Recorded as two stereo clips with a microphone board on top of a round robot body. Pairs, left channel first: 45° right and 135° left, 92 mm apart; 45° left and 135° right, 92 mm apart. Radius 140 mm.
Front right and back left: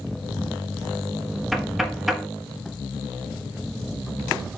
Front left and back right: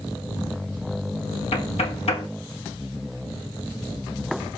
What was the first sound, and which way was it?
Knocking, 45° left.